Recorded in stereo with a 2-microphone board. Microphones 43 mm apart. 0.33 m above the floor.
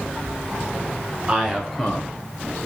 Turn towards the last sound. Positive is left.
turn(degrees=45)  # may be behind; listen again after turning